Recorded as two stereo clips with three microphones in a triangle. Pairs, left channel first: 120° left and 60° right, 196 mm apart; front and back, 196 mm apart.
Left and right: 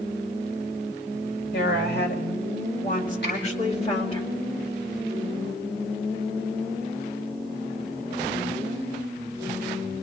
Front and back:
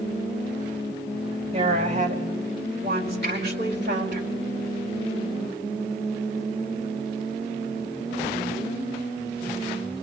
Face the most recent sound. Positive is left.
turn(degrees=150)